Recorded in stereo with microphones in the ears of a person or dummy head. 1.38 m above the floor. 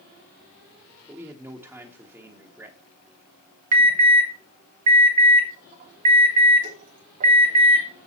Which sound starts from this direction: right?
An alarm, at 3.7 s.